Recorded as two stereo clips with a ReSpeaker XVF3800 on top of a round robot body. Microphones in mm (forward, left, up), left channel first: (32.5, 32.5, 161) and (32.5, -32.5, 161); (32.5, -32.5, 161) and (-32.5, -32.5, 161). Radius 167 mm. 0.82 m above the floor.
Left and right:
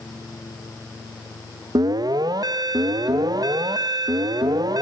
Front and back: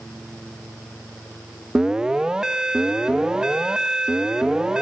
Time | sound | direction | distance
1.8 | an alarm | 100° right | 0.9 m